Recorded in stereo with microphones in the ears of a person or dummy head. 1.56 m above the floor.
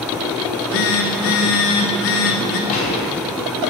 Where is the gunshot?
40° left (ahead or behind), 5.5 m.